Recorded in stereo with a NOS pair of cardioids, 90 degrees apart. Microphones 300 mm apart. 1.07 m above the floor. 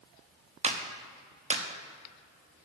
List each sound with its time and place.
0.6 s a clap: 20° right, 1.1 m